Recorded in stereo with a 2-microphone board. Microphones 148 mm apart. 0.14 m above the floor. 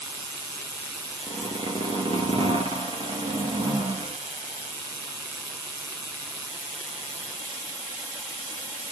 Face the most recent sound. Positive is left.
turn(degrees=-35)  # may be behind; listen again after turning